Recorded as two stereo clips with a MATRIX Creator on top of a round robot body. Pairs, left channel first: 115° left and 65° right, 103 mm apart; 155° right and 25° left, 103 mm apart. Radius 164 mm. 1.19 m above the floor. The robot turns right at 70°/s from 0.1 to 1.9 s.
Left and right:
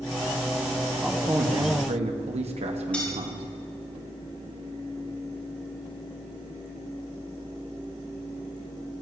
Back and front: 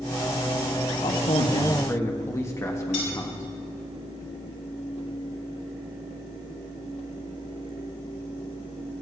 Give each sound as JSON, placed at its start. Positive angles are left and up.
{"t": 1.0, "sound": "a man speaking", "azimuth_deg": -155, "distance_m": 1.6}
{"t": 2.9, "sound": "cutlery clinking", "azimuth_deg": -170, "distance_m": 5.5}